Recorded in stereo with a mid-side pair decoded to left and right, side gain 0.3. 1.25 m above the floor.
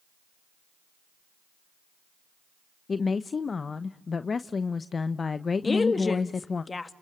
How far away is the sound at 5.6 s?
About 2 m.